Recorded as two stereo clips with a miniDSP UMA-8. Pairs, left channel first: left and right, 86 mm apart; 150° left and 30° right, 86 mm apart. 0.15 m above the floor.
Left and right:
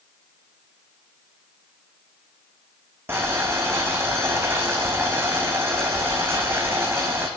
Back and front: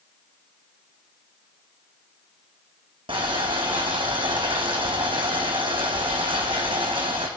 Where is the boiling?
25° right, 1.3 m.